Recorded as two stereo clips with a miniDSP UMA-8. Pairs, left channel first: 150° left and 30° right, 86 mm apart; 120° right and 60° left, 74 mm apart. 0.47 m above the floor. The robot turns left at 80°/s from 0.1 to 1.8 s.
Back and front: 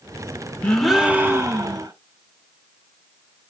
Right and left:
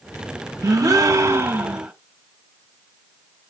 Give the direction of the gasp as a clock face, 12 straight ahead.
9 o'clock.